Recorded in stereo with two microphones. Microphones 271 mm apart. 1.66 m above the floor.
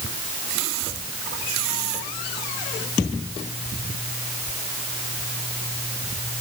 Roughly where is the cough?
I don't hear a cough.